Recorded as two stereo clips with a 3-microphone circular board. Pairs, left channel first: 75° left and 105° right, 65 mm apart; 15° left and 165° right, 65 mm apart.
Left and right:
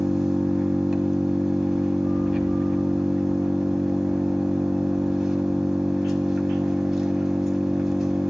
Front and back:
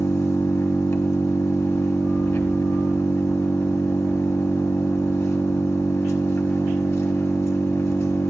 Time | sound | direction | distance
0.0 | an engine running | 20° right | 1.5 m